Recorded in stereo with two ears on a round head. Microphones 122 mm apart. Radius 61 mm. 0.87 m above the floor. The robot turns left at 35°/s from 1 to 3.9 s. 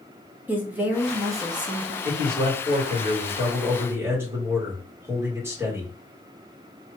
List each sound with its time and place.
0.5 s a woman speaking: 15° right, 0.8 m; by 1.9 s 45° right, 0.8 m
2.0 s a man speaking: 95° right, 2.0 m; by 5.9 s 160° right, 2.0 m